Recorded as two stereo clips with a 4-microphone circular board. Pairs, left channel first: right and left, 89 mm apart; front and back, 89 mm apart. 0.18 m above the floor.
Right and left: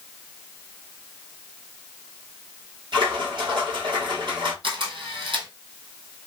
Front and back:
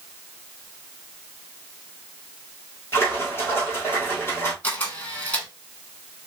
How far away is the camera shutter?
About 1.8 m.